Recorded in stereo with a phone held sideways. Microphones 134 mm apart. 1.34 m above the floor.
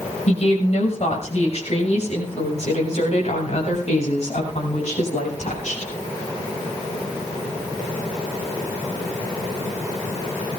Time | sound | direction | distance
0.3 | a woman speaking | 50° left (ahead or behind) | 6 m